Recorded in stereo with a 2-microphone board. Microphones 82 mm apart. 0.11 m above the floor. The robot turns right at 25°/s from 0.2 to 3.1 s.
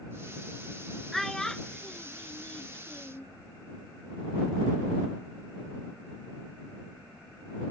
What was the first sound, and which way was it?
A child speaking, centre (ahead or behind).